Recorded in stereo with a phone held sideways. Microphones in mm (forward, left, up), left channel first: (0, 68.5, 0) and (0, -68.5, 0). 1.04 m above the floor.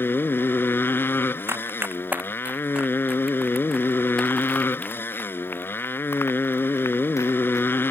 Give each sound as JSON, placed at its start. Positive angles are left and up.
{"t": 0.0, "sound": "a motorcycle", "side_deg": 15}
{"t": 1.5, "sound": "running footsteps", "side_deg": -20}